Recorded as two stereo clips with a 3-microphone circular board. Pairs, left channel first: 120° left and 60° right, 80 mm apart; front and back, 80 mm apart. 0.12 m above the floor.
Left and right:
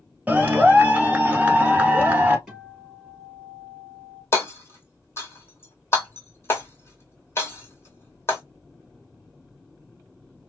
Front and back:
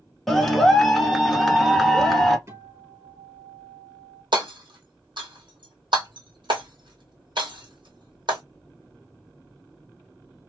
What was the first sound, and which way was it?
A clap, 80° right.